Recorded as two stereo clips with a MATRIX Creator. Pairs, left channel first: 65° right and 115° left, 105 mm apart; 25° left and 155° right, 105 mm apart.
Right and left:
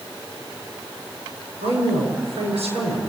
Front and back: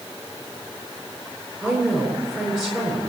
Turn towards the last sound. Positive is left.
turn(degrees=110)